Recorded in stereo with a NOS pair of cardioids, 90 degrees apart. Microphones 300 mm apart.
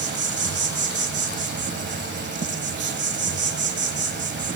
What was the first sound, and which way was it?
An insect, 35° right.